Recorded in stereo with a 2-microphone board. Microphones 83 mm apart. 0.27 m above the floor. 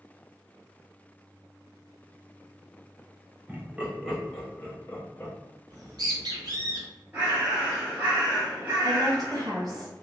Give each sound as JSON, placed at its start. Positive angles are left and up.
{"t": 3.5, "sound": "laughter", "side_deg": -20, "distance_m": 1.2}
{"t": 5.7, "sound": "a bird", "side_deg": -55, "distance_m": 1.4}
{"t": 7.1, "sound": "a bird", "side_deg": -25, "distance_m": 2.0}
{"t": 8.8, "sound": "a woman speaking", "side_deg": -55, "distance_m": 1.9}